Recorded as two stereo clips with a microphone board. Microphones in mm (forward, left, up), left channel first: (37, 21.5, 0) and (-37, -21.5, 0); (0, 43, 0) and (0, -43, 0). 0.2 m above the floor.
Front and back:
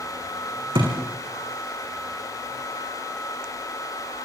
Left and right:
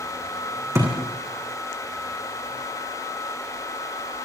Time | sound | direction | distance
0.8 | a thud | 145° right | 5.5 m